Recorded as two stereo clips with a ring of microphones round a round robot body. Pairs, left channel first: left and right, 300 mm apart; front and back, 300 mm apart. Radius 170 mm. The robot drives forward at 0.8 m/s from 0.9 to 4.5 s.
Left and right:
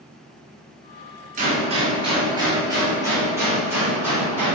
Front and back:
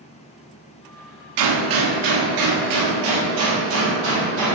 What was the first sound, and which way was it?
A gunshot, 160° right.